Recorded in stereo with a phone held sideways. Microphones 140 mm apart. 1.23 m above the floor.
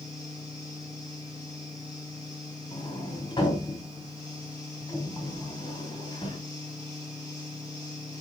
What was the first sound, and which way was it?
A fan, 45° right (ahead or behind).